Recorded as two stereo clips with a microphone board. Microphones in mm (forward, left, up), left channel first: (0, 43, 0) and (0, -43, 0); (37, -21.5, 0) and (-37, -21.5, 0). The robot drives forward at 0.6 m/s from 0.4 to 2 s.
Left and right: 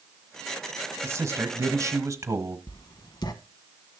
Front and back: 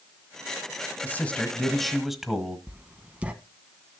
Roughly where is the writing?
Behind left.